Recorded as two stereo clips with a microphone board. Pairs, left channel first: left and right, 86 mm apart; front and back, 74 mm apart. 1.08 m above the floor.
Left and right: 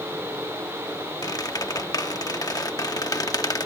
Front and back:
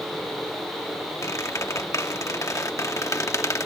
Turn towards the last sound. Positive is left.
turn(degrees=45)